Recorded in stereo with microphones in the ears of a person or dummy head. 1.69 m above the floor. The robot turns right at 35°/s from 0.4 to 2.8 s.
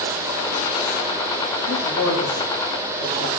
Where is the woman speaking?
90° left, 3.5 m; by 3.3 s 130° left, 3.5 m.